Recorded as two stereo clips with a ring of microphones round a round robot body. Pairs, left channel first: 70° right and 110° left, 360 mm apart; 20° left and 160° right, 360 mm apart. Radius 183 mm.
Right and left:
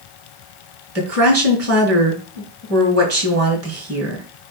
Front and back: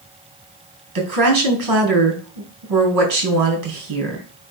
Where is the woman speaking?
165° left, 4.5 m.